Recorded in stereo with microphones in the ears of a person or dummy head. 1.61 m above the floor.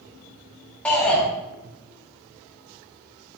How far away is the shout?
About 1.3 m.